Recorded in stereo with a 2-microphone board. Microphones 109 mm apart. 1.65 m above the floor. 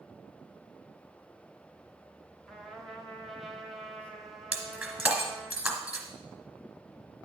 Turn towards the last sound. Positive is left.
turn(degrees=-5)  # may be behind; listen again after turning